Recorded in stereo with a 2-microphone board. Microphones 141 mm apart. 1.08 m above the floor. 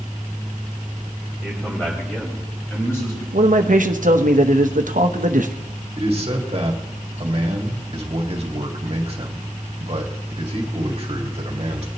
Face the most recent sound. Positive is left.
turn(degrees=-45)  # may be behind; listen again after turning